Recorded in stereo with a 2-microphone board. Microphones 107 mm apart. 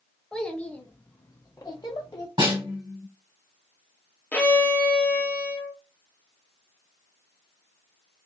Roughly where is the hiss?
No hiss in this recording.